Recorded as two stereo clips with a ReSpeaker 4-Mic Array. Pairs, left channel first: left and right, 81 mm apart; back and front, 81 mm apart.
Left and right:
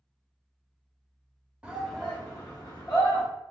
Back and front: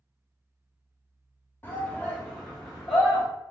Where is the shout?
150° right, 0.8 m; by 3.2 s 85° left, 1.4 m.